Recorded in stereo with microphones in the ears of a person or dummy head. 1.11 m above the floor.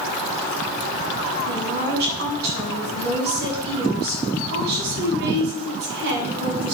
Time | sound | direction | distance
1.5 | a woman speaking | 55° right (ahead or behind) | 8 m